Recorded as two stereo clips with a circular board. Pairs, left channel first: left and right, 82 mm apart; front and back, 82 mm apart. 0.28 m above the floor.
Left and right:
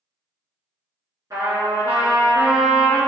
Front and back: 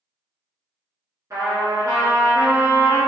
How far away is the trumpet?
About 1.7 m.